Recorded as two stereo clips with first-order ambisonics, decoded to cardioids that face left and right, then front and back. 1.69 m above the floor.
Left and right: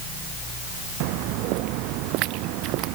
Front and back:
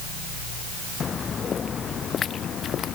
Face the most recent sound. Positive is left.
turn(degrees=-60)